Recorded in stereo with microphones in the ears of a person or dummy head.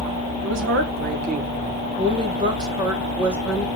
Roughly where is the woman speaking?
Right.